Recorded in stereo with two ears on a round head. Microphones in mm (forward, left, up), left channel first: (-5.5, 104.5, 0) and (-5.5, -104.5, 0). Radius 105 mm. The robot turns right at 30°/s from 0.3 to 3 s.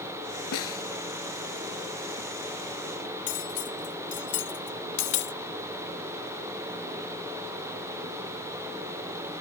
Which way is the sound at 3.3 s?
50° left (ahead or behind).